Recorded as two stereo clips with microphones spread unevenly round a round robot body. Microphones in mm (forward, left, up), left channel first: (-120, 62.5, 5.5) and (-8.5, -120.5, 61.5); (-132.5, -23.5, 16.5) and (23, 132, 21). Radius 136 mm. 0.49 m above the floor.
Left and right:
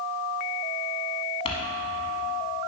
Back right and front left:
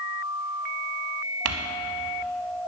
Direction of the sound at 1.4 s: 45° left.